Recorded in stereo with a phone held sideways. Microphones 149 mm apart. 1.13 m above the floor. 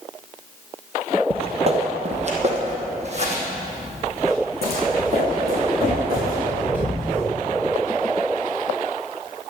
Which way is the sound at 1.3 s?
40° right (ahead or behind).